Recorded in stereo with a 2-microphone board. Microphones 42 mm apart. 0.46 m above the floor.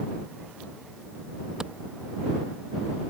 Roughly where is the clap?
Centre.